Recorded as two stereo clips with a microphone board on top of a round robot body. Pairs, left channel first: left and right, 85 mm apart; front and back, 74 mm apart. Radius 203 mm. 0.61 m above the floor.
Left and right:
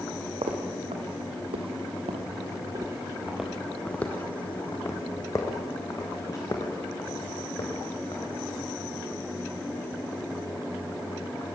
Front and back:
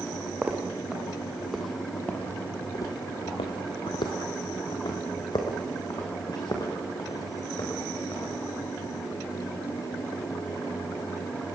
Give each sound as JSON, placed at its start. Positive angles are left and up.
{"t": 0.4, "sound": "footsteps", "azimuth_deg": -105, "distance_m": 2.5}